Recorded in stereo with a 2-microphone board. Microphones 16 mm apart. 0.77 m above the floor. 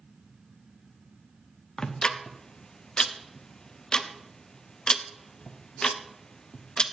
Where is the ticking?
60° left (ahead or behind), 0.7 m.